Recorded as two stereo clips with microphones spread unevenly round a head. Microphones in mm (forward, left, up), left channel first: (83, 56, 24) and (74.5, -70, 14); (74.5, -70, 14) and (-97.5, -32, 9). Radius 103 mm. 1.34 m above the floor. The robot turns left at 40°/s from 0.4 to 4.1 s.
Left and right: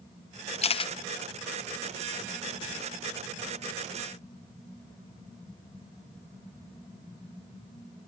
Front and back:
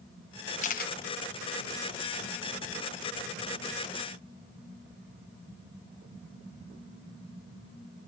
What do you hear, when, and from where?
0.6 s a camera shutter: 45° left, 0.9 m; by 0.9 s 35° left, 0.9 m